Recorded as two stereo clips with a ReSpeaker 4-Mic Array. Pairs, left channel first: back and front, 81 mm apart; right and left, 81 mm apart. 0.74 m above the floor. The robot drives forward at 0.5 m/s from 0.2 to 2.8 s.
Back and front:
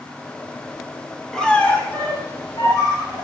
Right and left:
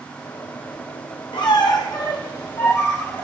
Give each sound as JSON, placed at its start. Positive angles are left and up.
{"t": 1.3, "sound": "a squeak", "azimuth_deg": -100, "distance_m": 0.6}